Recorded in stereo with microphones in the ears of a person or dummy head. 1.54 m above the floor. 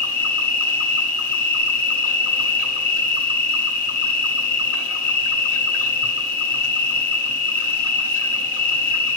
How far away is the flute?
I don't hear a flute.